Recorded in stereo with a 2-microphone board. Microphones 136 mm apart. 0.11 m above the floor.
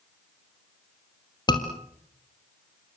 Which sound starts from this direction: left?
A scream, at 1.5 s.